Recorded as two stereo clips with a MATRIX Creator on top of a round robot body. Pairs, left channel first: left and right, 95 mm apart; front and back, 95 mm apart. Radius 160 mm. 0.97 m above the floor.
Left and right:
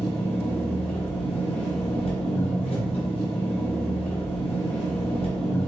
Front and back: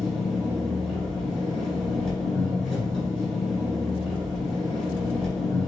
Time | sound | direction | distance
0.0 | an engine running | 90° left | 2 m